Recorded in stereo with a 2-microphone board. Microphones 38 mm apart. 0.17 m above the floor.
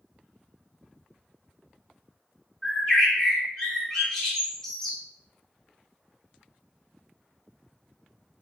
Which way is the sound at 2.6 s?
10° left (ahead or behind).